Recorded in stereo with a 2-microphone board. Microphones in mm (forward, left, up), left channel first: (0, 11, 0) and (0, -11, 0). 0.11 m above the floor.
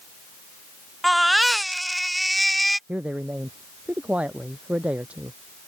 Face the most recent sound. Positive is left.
turn(degrees=-75)  # may be behind; listen again after turning